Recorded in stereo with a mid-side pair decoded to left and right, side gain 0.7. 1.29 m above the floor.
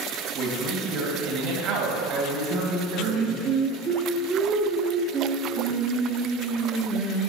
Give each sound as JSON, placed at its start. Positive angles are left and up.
{"t": 0.3, "sound": "a man speaking", "azimuth_deg": -65, "distance_m": 2.5}
{"t": 2.5, "sound": "singing", "azimuth_deg": -40, "distance_m": 1.3}